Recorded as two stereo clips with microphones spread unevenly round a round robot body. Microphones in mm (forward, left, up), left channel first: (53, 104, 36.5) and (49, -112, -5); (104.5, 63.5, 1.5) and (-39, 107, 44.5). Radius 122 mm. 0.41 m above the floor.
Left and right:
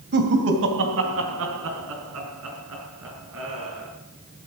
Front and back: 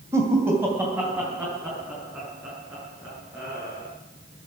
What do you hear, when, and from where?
0.1 s laughter: 115° right, 1.9 m; by 3.9 s 110° right, 6.5 m